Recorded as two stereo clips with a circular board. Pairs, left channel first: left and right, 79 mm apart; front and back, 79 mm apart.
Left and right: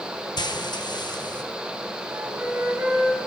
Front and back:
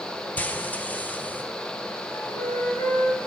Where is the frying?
70° left, 1.1 m.